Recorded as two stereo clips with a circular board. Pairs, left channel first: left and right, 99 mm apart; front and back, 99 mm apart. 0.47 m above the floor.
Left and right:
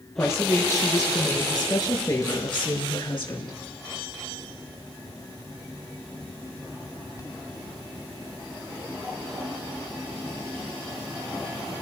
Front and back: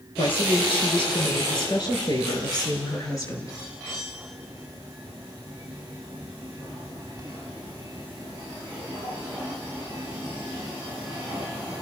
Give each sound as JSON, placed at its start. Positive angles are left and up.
{"t": 0.2, "sound": "a woman speaking", "azimuth_deg": 25, "distance_m": 8.0}